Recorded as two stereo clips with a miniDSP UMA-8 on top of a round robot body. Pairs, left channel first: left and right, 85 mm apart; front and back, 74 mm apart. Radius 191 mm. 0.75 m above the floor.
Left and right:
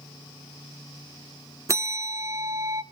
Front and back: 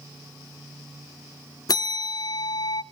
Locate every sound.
1.7 s a bell: 35° right, 0.5 m